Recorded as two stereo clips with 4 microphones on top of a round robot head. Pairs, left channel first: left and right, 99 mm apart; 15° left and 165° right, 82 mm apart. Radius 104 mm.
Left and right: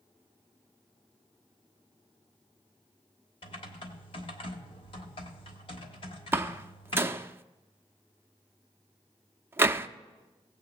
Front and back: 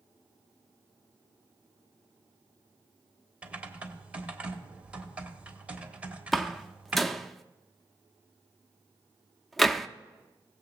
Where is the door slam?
75° right, 0.6 m.